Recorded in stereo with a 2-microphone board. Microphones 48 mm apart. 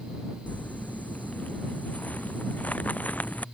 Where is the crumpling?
30° left (ahead or behind).